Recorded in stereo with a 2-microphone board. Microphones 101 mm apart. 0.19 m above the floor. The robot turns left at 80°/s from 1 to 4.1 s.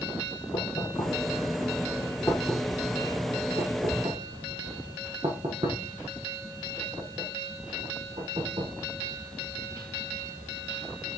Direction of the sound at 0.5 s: 50° left (ahead or behind).